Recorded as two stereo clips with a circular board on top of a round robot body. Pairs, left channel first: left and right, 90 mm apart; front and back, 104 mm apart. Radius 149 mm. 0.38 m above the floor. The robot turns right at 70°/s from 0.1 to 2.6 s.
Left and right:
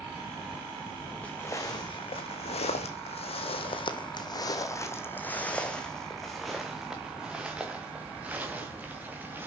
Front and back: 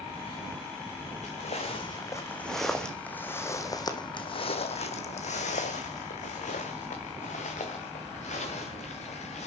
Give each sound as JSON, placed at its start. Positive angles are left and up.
{"t": 1.2, "sound": "footsteps", "azimuth_deg": 10, "distance_m": 2.5}